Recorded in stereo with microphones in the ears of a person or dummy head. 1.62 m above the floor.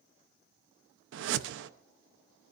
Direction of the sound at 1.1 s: 65° right (ahead or behind).